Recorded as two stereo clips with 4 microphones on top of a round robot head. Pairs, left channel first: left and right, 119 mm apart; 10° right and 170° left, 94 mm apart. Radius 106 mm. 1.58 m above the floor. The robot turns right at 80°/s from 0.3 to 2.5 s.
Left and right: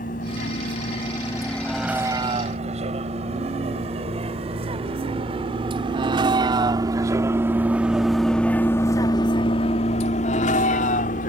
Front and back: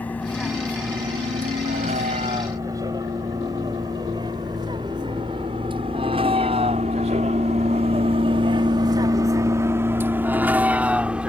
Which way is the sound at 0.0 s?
65° left.